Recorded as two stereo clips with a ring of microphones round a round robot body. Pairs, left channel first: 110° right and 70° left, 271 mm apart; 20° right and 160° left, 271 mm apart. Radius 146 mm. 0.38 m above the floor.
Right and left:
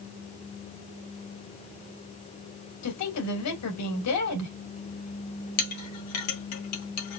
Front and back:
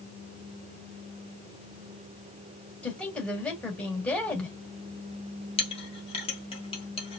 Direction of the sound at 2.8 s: 110° right.